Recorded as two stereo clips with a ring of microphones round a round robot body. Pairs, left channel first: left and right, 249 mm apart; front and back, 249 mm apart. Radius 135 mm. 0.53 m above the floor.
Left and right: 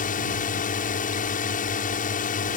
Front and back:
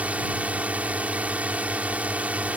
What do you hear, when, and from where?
0.0 s a drone: 100° left